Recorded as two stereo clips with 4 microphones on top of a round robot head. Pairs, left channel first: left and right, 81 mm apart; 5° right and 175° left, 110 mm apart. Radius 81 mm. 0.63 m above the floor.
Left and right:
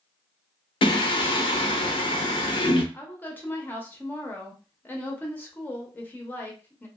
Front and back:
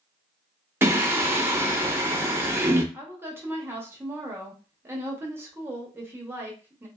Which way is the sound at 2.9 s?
130° left.